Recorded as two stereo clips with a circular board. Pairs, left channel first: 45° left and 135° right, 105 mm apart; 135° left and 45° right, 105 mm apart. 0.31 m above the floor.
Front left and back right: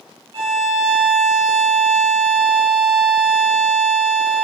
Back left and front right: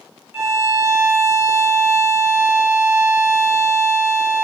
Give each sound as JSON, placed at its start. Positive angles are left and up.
{"t": 0.3, "sound": "a violin", "azimuth_deg": -115, "distance_m": 0.9}